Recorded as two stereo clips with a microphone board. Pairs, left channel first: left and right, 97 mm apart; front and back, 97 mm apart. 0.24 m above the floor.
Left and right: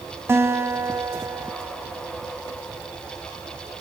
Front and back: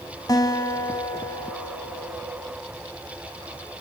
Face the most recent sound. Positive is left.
turn(degrees=-30)